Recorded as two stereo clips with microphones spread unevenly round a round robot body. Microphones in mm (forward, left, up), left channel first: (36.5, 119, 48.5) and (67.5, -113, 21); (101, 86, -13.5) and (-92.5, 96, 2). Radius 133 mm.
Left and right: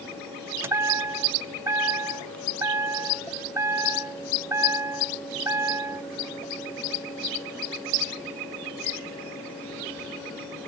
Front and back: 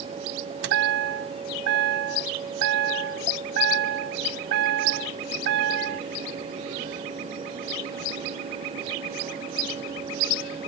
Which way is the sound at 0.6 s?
165° right.